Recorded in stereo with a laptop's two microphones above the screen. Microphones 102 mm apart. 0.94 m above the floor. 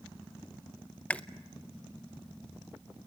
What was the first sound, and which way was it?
Chewing, 10° left (ahead or behind).